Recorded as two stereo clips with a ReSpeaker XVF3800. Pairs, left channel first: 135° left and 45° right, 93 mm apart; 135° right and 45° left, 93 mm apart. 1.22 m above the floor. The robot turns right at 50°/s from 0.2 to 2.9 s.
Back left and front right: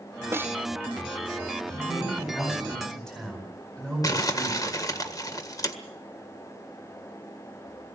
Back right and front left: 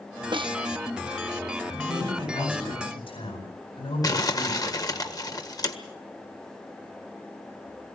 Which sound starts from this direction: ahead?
A snare drum, at 0.3 s.